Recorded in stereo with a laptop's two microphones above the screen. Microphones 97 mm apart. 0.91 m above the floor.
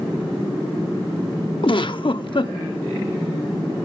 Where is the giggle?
60° left (ahead or behind), 0.8 m.